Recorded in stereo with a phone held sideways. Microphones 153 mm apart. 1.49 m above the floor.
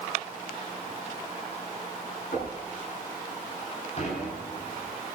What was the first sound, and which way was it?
Knocking, 70° left (ahead or behind).